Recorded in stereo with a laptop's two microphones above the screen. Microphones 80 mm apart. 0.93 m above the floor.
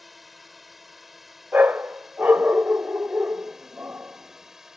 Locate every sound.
0.0 s a drone: centre (ahead or behind); by 4.8 s 5° right (ahead or behind)
1.5 s a dog barking: 20° right (ahead or behind)